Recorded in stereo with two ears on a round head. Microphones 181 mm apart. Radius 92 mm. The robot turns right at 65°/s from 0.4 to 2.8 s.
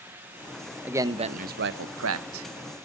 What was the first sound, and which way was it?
A man speaking, 175° right.